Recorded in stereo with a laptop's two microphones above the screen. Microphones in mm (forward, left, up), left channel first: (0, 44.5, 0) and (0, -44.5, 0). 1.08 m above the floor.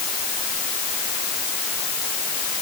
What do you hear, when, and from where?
Only background noise.